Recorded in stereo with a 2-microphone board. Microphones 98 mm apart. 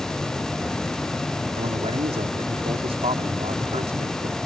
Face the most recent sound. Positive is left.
turn(degrees=-90)